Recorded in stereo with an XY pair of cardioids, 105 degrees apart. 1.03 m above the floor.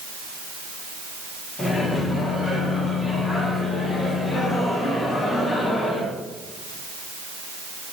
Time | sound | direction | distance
1.6 | a microwave | 30° left | 2 m